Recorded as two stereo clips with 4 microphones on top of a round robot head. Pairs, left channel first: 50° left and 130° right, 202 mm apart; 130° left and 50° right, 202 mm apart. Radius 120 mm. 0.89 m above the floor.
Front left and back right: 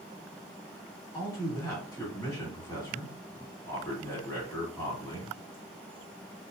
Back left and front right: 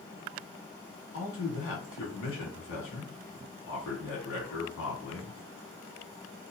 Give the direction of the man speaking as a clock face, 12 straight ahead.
8 o'clock.